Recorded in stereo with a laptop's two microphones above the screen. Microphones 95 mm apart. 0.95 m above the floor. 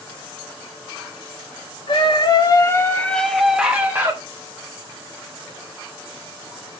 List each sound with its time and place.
1.9 s a scream: 60° left (ahead or behind), 1.3 m; by 4.2 s 25° right (ahead or behind), 1.4 m